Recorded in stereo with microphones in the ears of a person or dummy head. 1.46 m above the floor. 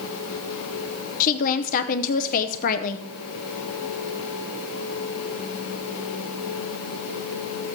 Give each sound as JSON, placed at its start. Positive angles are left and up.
{"t": 1.2, "sound": "a woman speaking", "side_deg": 45, "distance_m": 0.7}